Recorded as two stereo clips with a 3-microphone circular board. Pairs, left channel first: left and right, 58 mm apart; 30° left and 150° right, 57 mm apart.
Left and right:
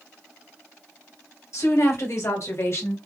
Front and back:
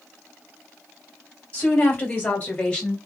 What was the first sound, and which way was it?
A woman speaking, 85° left.